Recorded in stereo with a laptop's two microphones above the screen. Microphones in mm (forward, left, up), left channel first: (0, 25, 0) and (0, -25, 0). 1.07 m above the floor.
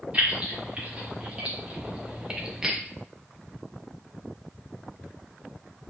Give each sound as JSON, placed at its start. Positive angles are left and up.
{"t": 0.1, "sound": "keys jangling", "side_deg": -25, "distance_m": 1.9}